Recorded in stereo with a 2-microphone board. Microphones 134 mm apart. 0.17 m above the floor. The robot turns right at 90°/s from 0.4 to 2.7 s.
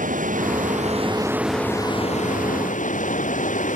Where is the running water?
100° right; by 3.8 s 105° left.